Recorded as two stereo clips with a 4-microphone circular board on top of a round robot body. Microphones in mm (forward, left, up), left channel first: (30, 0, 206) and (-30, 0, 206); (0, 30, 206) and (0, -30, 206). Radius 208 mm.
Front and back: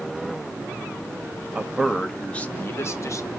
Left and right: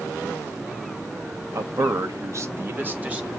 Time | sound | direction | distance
1.6 | a man speaking | 110° right | 1.3 m